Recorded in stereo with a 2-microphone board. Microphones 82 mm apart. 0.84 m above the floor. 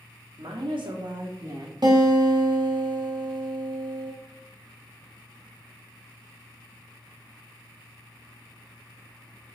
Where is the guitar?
55° right (ahead or behind), 1.6 m.